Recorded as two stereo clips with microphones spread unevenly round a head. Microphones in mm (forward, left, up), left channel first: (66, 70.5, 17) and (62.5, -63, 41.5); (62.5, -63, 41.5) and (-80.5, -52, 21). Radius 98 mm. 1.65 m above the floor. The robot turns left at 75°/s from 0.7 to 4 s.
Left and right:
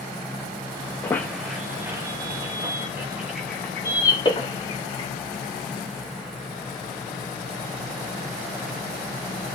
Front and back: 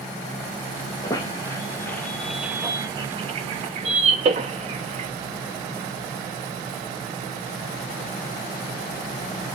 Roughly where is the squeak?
Ahead.